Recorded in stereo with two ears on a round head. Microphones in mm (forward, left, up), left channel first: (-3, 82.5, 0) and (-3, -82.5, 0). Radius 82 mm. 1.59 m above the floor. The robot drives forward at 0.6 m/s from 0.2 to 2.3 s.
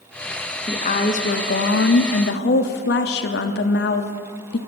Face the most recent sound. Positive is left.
turn(degrees=70)  # may be behind; listen again after turning